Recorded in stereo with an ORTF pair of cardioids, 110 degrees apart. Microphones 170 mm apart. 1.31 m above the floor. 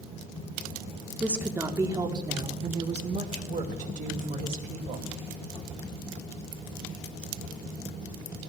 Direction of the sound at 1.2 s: 5° right.